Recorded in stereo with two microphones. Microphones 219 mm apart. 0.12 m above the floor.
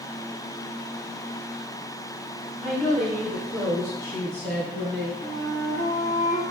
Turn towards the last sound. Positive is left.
turn(degrees=15)  # may be behind; listen again after turning